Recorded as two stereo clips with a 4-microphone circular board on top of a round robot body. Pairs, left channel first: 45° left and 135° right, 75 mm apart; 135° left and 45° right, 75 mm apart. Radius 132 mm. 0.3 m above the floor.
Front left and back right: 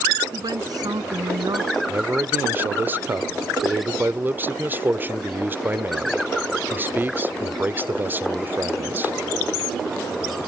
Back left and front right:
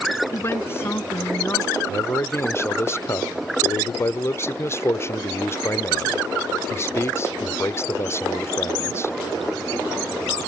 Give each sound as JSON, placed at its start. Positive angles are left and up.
{"t": 0.3, "sound": "a woman speaking", "azimuth_deg": -165}
{"t": 1.9, "sound": "a man speaking", "azimuth_deg": 175}